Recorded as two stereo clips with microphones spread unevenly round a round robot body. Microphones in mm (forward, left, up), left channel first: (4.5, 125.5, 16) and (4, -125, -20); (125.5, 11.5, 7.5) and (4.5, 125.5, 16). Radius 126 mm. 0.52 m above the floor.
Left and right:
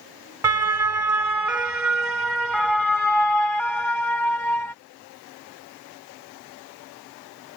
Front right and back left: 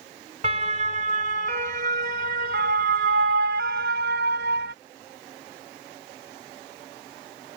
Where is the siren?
165° right; by 4.7 s 170° left.